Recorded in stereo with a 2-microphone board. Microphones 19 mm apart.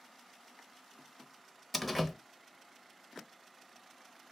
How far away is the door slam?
About 0.9 m.